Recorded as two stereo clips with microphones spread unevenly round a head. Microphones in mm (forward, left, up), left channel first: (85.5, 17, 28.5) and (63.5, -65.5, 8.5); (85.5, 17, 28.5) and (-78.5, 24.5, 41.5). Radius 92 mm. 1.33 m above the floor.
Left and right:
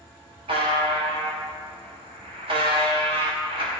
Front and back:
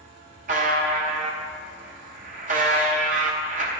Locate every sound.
0.5 s a buzzer: 145° right, 0.7 m